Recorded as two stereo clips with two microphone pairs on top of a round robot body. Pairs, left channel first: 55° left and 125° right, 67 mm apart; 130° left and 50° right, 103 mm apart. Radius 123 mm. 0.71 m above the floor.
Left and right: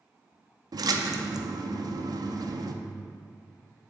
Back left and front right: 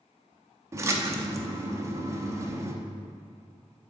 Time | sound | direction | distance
0.7 | a splash | 115° right | 0.7 m